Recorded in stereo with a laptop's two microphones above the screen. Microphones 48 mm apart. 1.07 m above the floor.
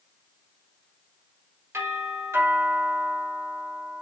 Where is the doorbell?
70° right (ahead or behind), 3.5 m.